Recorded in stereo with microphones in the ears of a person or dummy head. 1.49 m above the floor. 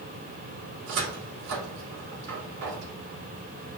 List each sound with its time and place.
0.9 s a cupboard door: 70° right (ahead or behind), 2.5 m